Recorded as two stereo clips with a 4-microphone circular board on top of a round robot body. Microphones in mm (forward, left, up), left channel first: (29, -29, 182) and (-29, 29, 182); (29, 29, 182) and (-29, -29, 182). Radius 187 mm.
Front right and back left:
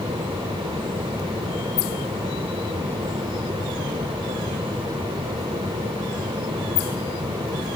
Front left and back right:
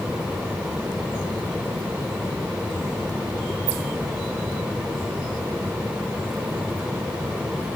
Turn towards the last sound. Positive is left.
No sound to turn to.